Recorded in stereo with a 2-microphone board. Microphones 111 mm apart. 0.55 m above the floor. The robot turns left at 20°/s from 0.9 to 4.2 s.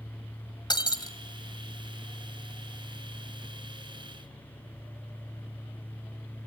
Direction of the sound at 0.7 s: 40° left (ahead or behind).